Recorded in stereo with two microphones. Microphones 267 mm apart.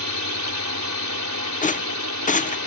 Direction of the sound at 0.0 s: 80° right.